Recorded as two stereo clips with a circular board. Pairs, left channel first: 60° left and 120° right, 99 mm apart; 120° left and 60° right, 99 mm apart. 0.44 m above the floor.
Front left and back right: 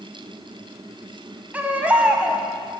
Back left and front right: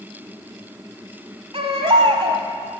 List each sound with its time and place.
1.5 s a baby crying: 45° right, 1.1 m